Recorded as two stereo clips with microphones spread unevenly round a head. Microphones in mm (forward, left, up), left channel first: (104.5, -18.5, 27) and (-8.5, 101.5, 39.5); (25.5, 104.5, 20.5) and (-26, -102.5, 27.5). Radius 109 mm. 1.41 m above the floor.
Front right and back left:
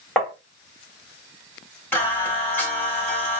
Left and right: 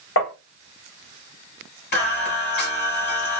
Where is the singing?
35° left, 2 m.